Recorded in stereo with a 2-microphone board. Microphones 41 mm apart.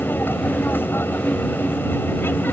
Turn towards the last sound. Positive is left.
turn(degrees=65)  # may be behind; listen again after turning